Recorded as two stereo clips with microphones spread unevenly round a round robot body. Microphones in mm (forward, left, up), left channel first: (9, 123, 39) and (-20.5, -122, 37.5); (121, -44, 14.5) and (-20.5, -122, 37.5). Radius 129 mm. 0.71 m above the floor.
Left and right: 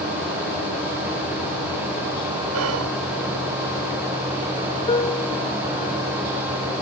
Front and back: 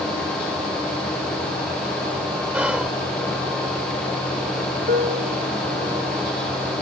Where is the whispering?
70° right.